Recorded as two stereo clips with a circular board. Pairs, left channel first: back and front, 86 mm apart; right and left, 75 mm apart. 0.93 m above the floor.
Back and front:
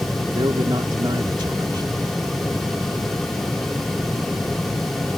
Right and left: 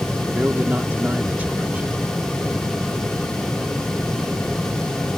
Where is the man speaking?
25° left.